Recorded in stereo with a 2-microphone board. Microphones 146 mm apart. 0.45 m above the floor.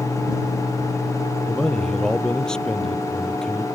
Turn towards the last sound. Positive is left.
turn(degrees=5)  # may be behind; listen again after turning